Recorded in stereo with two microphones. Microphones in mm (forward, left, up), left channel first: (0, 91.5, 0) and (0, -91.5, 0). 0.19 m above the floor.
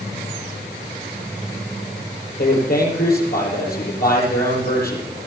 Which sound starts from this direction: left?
A man speaking, at 2.4 s.